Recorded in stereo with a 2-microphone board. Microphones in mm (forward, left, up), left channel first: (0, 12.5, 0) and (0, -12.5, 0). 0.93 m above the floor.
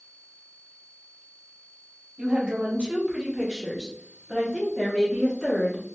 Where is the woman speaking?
50° right (ahead or behind), 1.3 m; by 5.8 s 30° left (ahead or behind), 1.3 m.